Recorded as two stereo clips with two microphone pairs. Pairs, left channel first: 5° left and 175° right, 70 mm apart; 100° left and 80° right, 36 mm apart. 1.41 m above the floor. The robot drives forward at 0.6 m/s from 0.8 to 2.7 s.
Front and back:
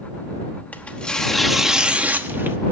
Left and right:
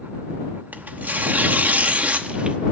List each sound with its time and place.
0.7 s tearing paper: 60° right, 1.1 m; by 2.6 s 125° right, 1.2 m